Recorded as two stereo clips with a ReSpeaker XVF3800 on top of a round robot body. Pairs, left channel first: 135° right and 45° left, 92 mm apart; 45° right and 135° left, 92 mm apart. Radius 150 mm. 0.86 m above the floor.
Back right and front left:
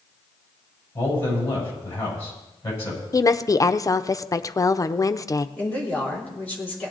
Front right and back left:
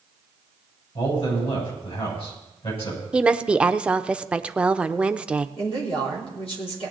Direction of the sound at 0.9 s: 70° right.